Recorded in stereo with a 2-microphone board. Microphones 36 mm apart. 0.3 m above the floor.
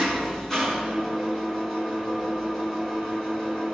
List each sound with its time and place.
0.0 s an engine running: 15° left (ahead or behind), 3 m